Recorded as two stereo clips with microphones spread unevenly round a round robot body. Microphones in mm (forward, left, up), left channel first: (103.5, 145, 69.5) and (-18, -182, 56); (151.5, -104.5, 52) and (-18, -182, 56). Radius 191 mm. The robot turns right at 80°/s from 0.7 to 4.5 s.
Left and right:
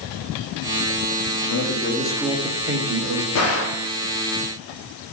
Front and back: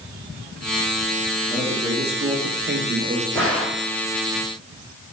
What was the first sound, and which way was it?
A man speaking, 105° left.